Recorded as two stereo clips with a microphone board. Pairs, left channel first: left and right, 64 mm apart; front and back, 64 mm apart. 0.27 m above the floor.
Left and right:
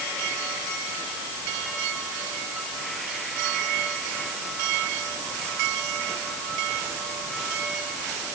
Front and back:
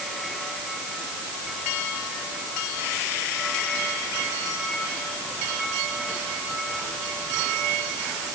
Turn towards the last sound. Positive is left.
No sound to turn to.